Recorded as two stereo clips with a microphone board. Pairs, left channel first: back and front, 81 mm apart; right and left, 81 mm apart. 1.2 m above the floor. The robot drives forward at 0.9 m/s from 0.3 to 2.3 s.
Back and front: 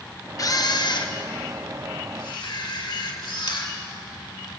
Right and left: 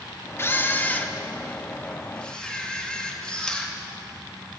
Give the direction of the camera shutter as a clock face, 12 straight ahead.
5 o'clock.